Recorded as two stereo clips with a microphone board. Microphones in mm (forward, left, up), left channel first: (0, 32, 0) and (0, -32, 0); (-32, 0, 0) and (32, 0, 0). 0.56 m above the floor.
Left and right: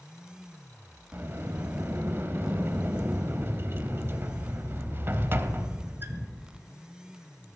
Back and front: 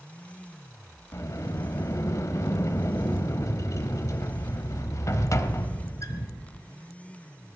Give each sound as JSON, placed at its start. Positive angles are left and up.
{"t": 1.1, "sound": "a sliding door", "azimuth_deg": -145, "distance_m": 1.0}